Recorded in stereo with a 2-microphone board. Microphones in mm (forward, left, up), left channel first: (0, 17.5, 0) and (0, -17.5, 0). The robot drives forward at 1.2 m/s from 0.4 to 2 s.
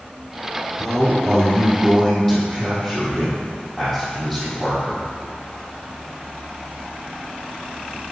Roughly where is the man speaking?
Centre.